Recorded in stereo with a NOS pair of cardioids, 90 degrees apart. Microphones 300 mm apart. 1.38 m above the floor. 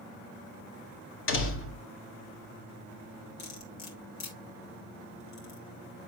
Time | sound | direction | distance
1.3 | a door slam | 45° left | 2 m
3.4 | cutlery clinking | 65° left | 3 m